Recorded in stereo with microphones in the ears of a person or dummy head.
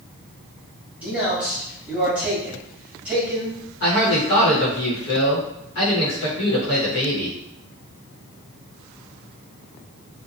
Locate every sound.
1.0 s a man speaking: 5° right (ahead or behind), 1.4 m
3.8 s a man speaking: 65° left (ahead or behind), 1.1 m